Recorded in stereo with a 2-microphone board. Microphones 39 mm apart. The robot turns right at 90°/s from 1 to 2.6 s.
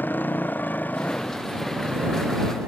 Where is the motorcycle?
55° left (ahead or behind); by 2.7 s 70° right (ahead or behind).